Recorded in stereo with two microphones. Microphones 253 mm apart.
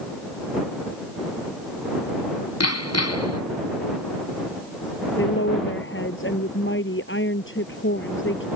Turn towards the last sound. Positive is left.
turn(degrees=50)  # may be behind; listen again after turning